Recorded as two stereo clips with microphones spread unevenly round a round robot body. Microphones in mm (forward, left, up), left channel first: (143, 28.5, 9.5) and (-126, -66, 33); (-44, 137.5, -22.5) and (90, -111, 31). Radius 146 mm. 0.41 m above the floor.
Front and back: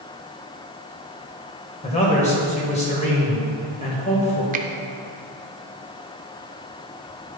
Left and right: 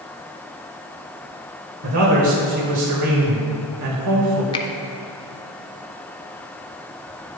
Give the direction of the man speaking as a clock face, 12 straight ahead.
1 o'clock.